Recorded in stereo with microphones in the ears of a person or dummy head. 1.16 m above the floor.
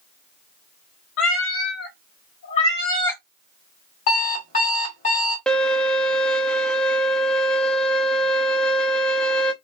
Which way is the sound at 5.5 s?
5° left (ahead or behind).